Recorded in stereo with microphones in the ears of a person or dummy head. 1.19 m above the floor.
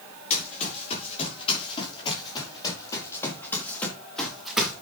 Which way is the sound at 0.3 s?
40° left (ahead or behind).